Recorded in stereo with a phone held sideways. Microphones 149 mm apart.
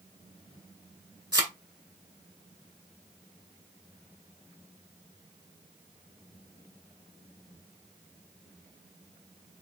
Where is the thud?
30° right (ahead or behind), 1.6 m.